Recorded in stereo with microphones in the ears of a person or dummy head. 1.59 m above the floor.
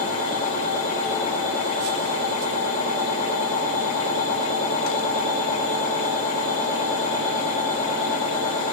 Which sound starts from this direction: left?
A machine running, at 0.0 s.